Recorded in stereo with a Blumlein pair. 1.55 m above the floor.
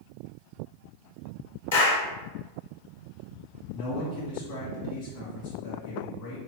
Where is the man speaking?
45° left, 1.6 m.